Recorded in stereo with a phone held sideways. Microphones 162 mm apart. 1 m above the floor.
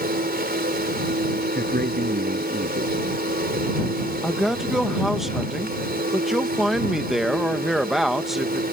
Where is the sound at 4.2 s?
Centre (ahead or behind).